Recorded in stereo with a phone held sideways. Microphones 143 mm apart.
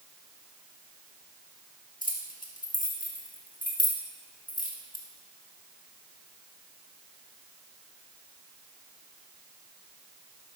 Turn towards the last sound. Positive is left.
turn(degrees=70)  # may be behind; listen again after turning